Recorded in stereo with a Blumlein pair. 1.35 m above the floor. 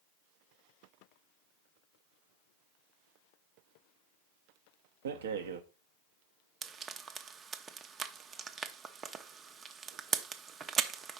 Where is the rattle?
60° right, 0.9 m.